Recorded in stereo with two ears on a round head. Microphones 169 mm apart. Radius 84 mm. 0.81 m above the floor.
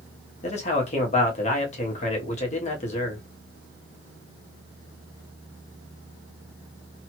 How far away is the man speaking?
About 1.0 m.